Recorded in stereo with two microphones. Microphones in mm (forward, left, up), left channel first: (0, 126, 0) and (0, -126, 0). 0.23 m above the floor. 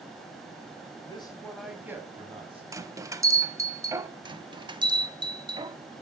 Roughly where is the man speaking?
Left.